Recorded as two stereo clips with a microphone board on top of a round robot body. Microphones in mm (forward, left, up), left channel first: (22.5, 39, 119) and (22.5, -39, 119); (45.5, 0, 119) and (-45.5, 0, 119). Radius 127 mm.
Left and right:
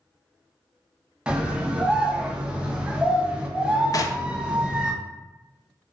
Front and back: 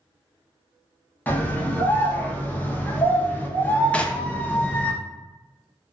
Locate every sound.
1.3 s a scream: 35° right, 0.9 m
3.9 s knocking: 75° left, 0.5 m